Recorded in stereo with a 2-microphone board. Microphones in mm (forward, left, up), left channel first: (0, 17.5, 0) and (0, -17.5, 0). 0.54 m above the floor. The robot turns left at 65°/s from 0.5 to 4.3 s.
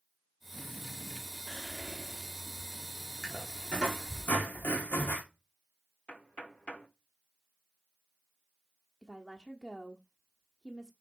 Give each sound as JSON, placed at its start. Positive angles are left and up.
{"t": 1.5, "sound": "whispering", "azimuth_deg": 50, "distance_m": 0.9}
{"t": 3.2, "sound": "a squeak", "azimuth_deg": -175, "distance_m": 4.5}
{"t": 6.1, "sound": "knocking", "side_deg": 35, "distance_m": 1.4}
{"t": 9.0, "sound": "a woman speaking", "side_deg": 10, "distance_m": 1.2}